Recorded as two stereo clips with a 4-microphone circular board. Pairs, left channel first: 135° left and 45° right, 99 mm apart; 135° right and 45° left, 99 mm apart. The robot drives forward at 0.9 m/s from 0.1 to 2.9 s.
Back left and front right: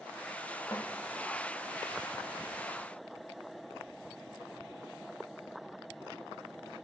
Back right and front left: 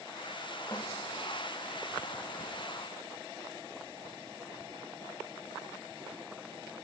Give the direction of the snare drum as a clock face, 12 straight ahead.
6 o'clock.